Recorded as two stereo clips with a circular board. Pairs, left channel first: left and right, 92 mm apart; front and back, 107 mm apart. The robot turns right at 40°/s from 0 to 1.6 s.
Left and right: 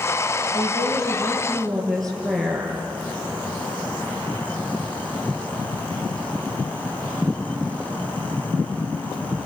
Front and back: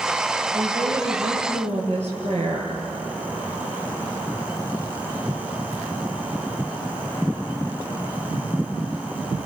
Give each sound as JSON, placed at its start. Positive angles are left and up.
{"t": 0.5, "sound": "a woman speaking", "azimuth_deg": 135, "distance_m": 8.0}